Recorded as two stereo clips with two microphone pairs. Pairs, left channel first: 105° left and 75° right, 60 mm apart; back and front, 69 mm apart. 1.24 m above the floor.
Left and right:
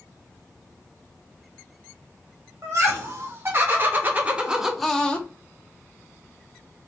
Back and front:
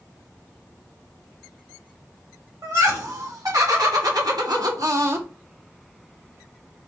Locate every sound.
2.6 s laughter: 35° right, 3.5 m; by 5.3 s 45° left, 1.3 m